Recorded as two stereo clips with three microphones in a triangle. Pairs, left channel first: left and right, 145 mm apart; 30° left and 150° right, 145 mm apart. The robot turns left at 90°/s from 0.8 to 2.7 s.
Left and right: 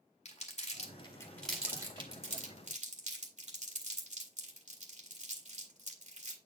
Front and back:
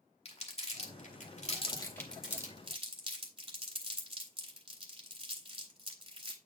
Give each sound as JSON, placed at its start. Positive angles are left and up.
{"t": 0.2, "sound": "crumpling", "azimuth_deg": 65, "distance_m": 2.0}